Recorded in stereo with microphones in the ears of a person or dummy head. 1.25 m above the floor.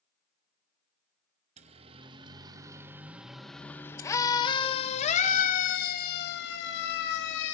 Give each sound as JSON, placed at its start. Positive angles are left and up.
{"t": 1.6, "sound": "a siren", "side_deg": -35, "distance_m": 2.5}